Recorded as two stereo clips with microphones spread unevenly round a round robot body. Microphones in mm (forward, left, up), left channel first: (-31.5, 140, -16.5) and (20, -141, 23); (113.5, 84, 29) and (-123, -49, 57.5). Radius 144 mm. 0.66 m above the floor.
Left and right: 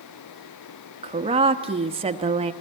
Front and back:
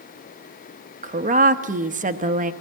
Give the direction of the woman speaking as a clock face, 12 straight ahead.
5 o'clock.